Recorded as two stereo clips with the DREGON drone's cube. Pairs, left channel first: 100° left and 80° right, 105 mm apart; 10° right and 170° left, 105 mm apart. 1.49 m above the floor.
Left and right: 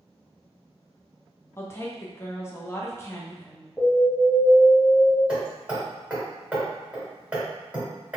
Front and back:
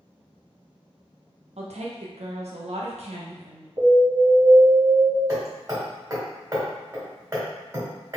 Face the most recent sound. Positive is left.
turn(degrees=-155)